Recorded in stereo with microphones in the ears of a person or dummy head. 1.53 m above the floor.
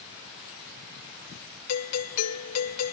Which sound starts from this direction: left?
A doorbell, at 1.7 s.